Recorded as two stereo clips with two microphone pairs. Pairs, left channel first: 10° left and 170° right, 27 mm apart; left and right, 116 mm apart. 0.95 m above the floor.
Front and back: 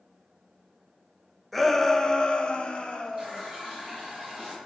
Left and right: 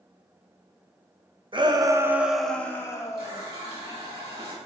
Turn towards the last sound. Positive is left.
turn(degrees=-130)